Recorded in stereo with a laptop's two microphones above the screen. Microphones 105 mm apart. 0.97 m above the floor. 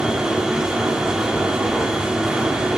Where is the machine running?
5° right (ahead or behind), 0.7 m.